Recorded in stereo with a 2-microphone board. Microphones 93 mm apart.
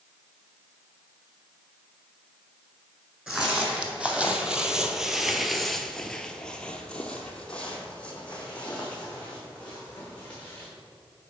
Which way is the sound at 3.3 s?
10° right (ahead or behind).